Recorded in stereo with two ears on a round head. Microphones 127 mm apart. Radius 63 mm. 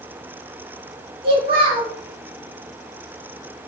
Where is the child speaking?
40° right (ahead or behind), 0.9 m.